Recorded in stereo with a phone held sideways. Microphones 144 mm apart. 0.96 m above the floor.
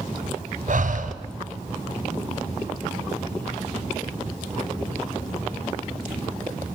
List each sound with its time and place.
0.7 s breathing: 65° right (ahead or behind), 1.7 m